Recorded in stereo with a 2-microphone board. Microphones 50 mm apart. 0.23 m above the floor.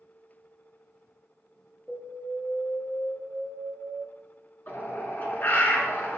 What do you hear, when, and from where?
1.9 s an alarm: 15° right (ahead or behind), 3 m
4.7 s a bird: 35° left (ahead or behind), 2 m